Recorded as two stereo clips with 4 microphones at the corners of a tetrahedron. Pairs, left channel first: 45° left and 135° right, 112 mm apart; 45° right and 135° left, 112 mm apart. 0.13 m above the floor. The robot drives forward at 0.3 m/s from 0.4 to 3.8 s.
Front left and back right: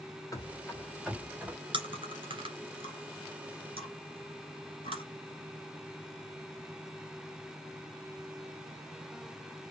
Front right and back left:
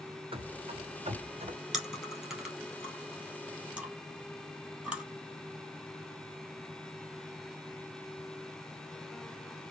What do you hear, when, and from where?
0.3 s running footsteps: 100° left, 1.2 m; by 1.6 s 150° left, 1.6 m
1.7 s chewing: 140° right, 1.9 m; by 5.0 s 150° right, 2.5 m